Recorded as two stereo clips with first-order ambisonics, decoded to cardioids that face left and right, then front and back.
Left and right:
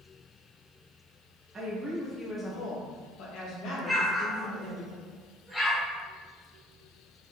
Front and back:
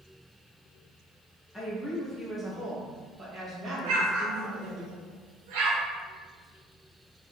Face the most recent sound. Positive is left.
turn(degrees=180)